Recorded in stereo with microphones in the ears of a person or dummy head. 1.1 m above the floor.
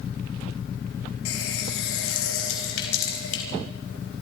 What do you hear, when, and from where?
1.2 s a running tap: 65° left (ahead or behind), 4 m